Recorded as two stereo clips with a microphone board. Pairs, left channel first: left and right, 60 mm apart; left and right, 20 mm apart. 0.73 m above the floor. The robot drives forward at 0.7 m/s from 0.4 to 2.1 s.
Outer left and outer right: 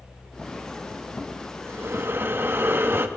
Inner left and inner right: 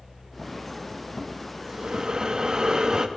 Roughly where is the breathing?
Right.